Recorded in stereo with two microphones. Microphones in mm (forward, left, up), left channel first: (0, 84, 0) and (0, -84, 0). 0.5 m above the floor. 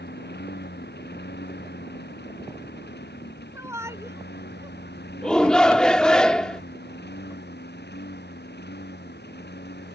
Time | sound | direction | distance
0.0 | a lawn mower | 85° left | ?
3.5 | a shout | 15° right (ahead or behind) | ?
5.2 | a shout | 5° left (ahead or behind) | ?